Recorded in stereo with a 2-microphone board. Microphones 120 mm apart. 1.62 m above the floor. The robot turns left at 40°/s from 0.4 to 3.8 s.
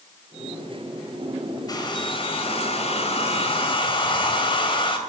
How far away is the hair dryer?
About 2.5 m.